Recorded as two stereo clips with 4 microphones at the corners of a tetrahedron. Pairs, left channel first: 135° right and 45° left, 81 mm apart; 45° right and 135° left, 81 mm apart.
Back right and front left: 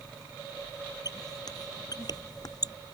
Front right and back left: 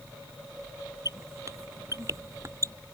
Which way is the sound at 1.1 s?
175° right.